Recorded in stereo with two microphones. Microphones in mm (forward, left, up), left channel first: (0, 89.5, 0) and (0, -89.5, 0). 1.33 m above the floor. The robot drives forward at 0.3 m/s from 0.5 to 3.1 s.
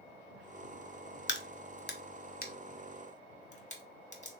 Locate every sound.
1.3 s a crack: 80° left, 0.5 m; by 4.3 s 40° left (ahead or behind), 0.7 m